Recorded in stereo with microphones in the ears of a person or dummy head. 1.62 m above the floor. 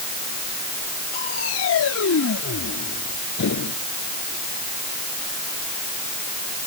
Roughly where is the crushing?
Left.